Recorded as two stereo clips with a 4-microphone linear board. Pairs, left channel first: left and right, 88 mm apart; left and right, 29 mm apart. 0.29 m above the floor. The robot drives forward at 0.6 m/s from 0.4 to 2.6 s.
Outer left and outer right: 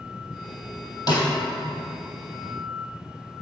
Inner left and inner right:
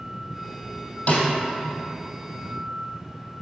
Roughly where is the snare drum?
Left.